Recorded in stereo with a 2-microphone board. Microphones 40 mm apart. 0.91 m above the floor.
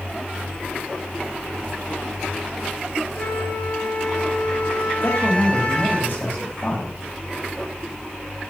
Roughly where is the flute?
Left.